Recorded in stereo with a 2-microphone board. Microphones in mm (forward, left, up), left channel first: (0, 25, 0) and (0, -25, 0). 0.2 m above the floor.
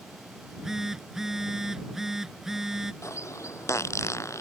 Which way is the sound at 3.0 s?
75° left (ahead or behind).